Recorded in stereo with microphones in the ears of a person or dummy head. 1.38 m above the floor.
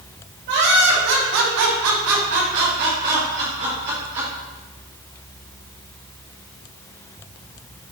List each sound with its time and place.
0.5 s laughter: 55° right (ahead or behind), 2 m; by 4.3 s 25° right (ahead or behind), 2.5 m